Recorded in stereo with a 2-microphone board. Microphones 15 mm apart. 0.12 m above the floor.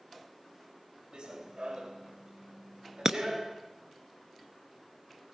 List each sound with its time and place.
1.1 s running footsteps: 90° right, 4 m; by 3.5 s 80° right, 5.5 m
3.0 s breaking glass: 40° right (ahead or behind), 0.9 m